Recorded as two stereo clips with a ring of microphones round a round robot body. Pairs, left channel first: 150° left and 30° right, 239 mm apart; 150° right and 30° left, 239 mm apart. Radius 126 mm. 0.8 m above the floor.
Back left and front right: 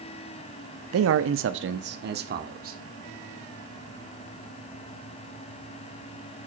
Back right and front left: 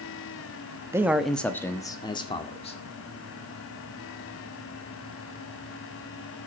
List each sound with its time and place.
0.9 s a man speaking: 50° right, 0.8 m; by 2.8 s 85° right, 1.9 m